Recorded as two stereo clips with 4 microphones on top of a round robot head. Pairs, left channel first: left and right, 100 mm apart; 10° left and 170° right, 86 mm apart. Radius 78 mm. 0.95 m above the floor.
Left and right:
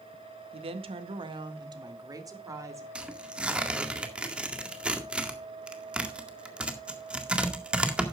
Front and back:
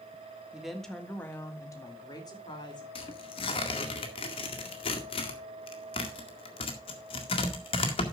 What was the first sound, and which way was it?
A woman speaking, 90° right.